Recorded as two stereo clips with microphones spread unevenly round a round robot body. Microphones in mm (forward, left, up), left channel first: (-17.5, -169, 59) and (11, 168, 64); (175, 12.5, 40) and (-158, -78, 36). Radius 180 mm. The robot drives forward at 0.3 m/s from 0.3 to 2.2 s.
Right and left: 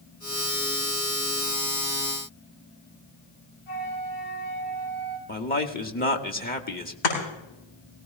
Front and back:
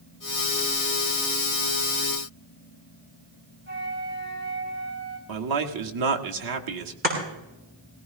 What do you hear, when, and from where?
3.7 s a flute: 105° right, 5 m
5.3 s a man speaking: 155° right, 1.5 m
7.0 s chopping: 100° right, 7.5 m